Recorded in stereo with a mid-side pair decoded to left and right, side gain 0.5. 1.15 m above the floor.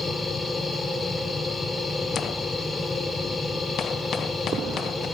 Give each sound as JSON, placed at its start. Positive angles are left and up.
{"t": 0.0, "sound": "a machine running", "azimuth_deg": 20, "distance_m": 1.8}